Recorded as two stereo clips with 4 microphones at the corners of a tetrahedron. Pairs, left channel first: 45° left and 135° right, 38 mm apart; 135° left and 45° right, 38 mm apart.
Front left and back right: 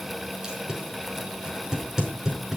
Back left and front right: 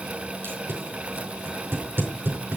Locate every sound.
0.4 s tape being pulled: 60° right, 5 m